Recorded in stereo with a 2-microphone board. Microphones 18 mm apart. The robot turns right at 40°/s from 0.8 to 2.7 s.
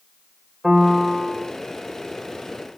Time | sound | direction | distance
0.6 | a piano | 20° right (ahead or behind) | 1.5 m